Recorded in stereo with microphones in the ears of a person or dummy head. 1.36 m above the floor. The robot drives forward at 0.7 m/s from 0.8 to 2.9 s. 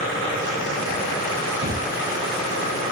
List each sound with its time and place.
1.6 s a thud: 50° right (ahead or behind), 7.5 m